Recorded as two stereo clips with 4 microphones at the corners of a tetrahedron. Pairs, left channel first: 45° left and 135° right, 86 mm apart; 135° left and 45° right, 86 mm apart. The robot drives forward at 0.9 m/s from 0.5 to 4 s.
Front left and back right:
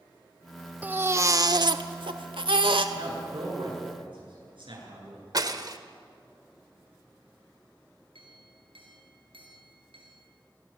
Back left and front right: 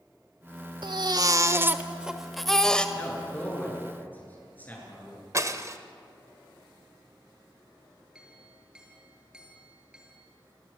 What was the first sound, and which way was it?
A baby crying, 65° right.